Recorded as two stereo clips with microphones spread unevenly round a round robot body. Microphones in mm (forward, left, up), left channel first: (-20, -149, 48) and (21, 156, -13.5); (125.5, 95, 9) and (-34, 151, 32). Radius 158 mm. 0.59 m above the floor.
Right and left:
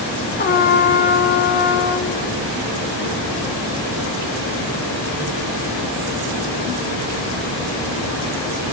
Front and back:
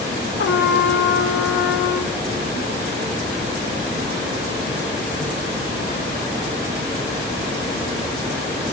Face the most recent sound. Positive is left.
turn(degrees=-30)